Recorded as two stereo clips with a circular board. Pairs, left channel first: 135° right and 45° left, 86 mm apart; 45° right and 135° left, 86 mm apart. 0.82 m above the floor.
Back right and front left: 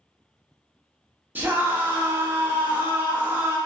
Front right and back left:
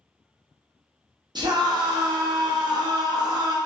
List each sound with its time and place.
1.4 s a scream: 110° left, 0.7 m